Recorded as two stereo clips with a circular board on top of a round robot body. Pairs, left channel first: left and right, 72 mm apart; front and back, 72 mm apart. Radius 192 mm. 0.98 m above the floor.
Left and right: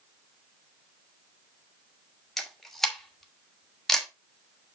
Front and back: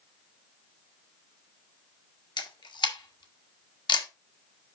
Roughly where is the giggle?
I don't hear a giggle.